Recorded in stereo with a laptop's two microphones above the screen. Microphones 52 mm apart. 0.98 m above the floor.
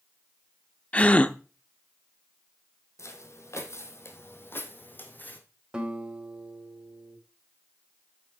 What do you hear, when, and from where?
0.9 s a gasp: 25° left (ahead or behind), 0.6 m
3.0 s footsteps: 60° left (ahead or behind), 1.9 m; by 5.4 s 30° left (ahead or behind), 2.5 m
5.7 s a guitar: 20° right (ahead or behind), 3.5 m